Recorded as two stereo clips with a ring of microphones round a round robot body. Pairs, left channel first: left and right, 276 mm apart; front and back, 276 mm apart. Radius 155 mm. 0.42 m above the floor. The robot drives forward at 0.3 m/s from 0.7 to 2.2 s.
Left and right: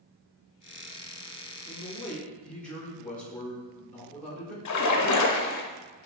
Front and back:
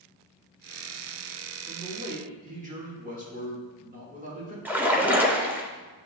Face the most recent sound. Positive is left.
turn(degrees=95)